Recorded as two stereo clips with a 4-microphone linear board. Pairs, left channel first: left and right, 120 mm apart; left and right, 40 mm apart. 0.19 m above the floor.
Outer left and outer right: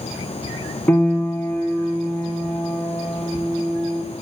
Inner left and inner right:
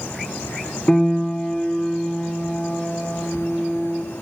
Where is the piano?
15° left (ahead or behind), 1.9 m.